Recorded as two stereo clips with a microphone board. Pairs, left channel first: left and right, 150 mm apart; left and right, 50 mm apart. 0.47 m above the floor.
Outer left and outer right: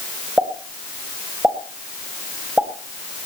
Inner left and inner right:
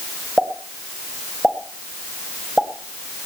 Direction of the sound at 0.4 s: 10° right (ahead or behind).